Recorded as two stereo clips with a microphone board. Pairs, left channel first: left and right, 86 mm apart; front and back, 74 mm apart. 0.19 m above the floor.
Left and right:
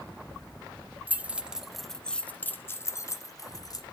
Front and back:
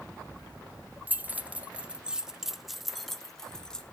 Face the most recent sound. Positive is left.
turn(degrees=80)